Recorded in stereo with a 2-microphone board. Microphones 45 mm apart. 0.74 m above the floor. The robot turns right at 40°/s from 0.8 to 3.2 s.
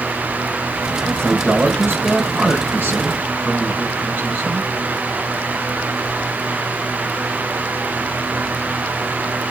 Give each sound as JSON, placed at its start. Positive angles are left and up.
{"t": 1.1, "sound": "a man speaking", "azimuth_deg": -125, "distance_m": 8.5}